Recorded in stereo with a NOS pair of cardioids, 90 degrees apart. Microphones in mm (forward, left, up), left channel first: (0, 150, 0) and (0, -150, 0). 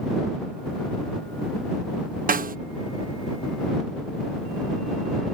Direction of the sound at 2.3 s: 30° right.